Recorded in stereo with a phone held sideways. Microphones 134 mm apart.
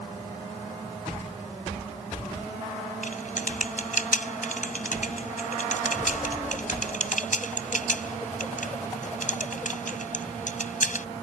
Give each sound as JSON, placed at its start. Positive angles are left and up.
{"t": 3.0, "sound": "typing on a keyboard", "side_deg": 65}